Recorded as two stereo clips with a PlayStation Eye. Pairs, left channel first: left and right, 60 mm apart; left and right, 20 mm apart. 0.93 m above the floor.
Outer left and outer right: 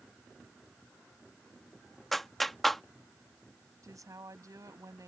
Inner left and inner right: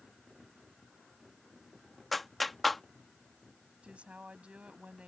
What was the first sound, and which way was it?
A clap, centre (ahead or behind).